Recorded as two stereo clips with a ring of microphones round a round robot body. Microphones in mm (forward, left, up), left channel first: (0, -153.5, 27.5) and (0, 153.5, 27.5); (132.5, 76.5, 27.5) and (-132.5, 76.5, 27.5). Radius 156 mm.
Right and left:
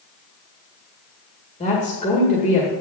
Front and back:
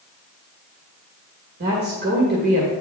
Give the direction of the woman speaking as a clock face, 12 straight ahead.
5 o'clock.